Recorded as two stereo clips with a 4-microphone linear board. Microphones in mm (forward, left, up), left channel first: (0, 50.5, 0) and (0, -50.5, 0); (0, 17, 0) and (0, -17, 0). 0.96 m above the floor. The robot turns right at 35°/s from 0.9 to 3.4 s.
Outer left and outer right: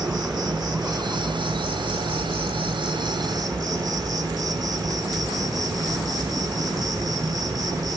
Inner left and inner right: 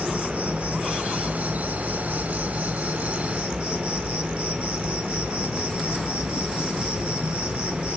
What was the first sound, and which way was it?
An insect, 135° right.